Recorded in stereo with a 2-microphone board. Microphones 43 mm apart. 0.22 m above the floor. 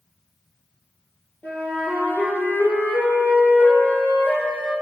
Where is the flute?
50° left (ahead or behind), 1.8 m.